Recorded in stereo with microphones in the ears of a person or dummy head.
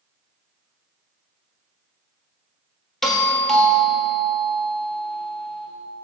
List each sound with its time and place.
3.0 s a doorbell: 5° left (ahead or behind), 1.0 m